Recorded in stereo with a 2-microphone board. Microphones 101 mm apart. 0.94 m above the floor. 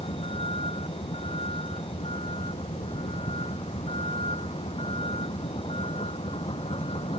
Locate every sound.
0.0 s a vehicle: 65° left (ahead or behind)